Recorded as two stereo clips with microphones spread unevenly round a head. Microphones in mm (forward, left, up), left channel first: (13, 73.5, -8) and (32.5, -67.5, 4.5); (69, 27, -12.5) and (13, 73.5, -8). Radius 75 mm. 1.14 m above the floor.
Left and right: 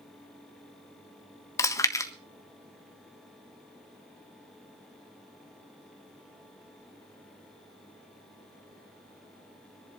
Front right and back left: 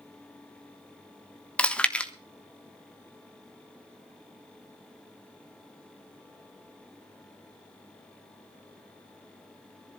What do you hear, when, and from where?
1.6 s chewing: 30° left, 1.4 m